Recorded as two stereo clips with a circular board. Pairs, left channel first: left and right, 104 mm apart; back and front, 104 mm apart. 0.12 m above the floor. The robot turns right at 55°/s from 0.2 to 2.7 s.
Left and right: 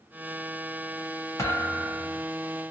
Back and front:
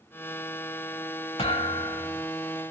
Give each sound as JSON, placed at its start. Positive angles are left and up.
{"t": 1.4, "sound": "a thud", "azimuth_deg": 150, "distance_m": 1.2}